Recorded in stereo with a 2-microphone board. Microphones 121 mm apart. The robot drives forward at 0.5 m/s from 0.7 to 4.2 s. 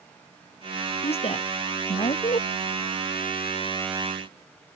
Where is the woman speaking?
55° left (ahead or behind); by 2.5 s 65° left (ahead or behind).